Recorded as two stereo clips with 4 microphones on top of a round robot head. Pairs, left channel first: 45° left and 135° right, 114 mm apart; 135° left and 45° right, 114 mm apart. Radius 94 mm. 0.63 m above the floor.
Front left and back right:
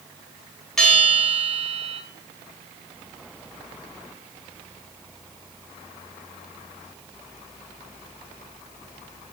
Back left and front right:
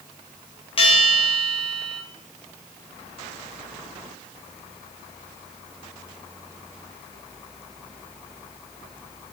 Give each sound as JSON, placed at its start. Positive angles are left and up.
{"t": 0.8, "sound": "a bell", "azimuth_deg": 125, "distance_m": 1.3}